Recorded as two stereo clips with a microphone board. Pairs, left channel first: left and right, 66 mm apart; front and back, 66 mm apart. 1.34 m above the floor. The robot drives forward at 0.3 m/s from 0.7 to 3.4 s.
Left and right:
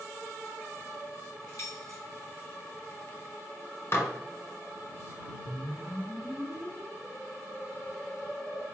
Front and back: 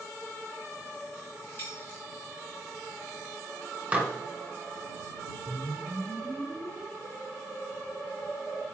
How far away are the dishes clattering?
About 0.5 m.